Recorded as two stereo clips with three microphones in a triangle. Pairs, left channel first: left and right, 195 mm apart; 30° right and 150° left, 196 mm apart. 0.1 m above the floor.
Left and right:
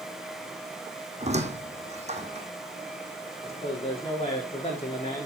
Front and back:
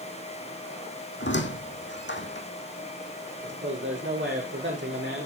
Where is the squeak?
35° right, 2.0 m.